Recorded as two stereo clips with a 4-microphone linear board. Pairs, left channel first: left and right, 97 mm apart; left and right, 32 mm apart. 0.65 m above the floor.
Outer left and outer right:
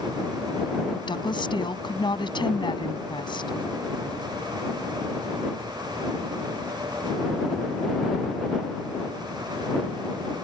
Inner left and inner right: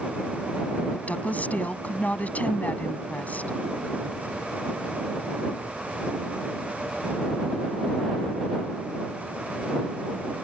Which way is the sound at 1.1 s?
55° left (ahead or behind).